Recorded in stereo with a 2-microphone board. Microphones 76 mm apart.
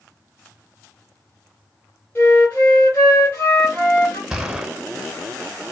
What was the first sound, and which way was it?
A flute, 30° left (ahead or behind).